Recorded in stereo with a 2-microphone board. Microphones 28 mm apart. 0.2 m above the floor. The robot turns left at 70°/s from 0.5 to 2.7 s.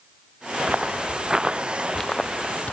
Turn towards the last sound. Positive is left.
turn(degrees=55)  # may be behind; listen again after turning